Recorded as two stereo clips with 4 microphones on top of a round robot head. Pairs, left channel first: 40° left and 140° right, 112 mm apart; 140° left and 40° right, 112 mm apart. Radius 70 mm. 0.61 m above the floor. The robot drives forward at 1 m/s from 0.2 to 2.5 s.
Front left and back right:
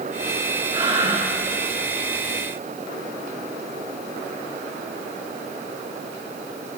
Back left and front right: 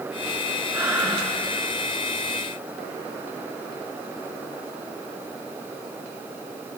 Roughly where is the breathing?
Right.